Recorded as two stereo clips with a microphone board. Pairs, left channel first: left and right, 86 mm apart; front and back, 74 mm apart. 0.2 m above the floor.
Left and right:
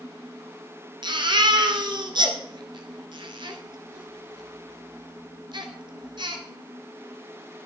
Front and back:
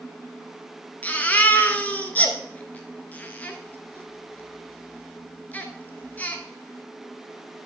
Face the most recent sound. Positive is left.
turn(degrees=-65)